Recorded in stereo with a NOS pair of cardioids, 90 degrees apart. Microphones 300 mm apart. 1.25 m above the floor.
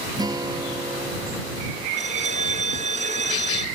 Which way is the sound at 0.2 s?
15° right.